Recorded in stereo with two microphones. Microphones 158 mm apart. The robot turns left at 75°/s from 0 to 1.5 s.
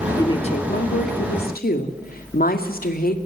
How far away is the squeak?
I don't hear a squeak.